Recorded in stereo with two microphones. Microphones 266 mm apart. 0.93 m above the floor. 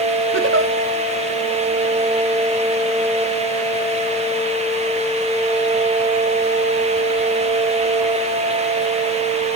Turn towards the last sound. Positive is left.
turn(degrees=-50)  # may be behind; listen again after turning